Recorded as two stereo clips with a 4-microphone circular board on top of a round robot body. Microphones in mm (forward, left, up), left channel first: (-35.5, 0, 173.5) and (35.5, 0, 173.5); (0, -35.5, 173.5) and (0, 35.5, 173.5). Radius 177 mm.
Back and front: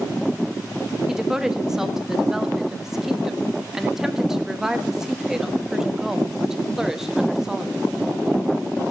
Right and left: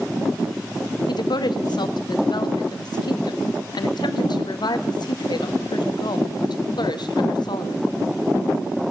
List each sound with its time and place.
1.1 s a woman speaking: 85° right, 1.6 m